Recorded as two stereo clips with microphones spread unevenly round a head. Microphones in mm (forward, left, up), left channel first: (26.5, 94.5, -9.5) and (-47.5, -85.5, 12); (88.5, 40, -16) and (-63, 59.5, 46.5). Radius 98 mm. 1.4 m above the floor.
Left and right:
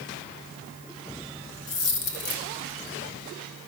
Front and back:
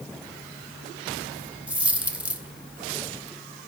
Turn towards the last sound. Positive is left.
turn(degrees=100)